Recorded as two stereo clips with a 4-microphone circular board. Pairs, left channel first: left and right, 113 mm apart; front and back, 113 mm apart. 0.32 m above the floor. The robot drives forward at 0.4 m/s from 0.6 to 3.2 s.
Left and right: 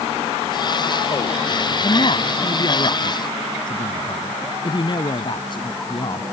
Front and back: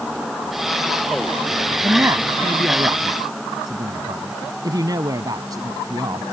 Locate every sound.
1.8 s a man speaking: 115° left; by 6.2 s 130° left